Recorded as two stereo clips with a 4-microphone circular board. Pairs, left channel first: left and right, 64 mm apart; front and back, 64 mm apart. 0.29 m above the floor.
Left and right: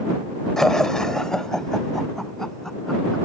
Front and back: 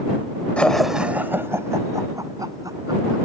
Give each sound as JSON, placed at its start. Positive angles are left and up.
{"t": 0.6, "sound": "laughter", "azimuth_deg": 20}